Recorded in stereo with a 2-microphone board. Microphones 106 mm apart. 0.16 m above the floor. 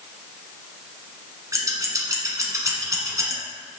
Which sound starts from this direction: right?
Scissors, at 1.5 s.